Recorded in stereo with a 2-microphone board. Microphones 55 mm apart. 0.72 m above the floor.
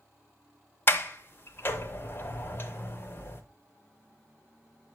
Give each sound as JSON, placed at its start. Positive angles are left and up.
{"t": 0.9, "sound": "a sliding door", "side_deg": 40, "distance_m": 0.6}